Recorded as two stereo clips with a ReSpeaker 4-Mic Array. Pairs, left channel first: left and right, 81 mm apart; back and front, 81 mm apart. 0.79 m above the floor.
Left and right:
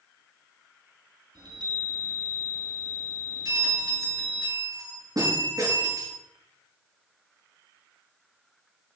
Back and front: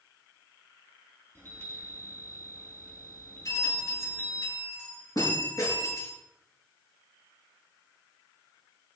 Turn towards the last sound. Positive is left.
turn(degrees=-130)